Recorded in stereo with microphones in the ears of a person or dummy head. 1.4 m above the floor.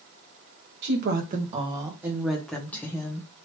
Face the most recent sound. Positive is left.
turn(degrees=20)  # may be behind; listen again after turning